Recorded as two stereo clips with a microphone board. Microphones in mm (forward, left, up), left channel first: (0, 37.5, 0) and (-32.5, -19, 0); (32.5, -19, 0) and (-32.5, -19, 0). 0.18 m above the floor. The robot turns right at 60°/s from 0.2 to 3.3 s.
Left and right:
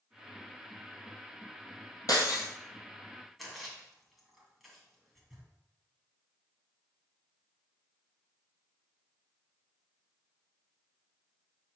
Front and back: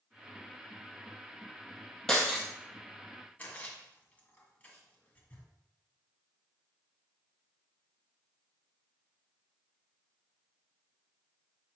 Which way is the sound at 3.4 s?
30° right.